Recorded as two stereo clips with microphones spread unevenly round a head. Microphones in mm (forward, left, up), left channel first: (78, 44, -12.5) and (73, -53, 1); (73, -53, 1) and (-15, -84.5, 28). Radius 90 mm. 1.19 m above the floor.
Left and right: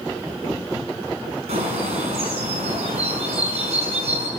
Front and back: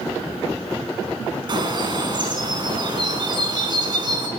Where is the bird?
125° right, 5.5 m.